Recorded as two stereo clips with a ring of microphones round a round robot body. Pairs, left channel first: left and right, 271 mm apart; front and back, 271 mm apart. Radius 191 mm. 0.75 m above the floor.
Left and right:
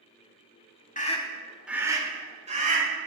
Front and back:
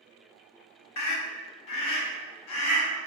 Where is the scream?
25° left, 1.6 m; by 2.9 s 30° right, 3 m.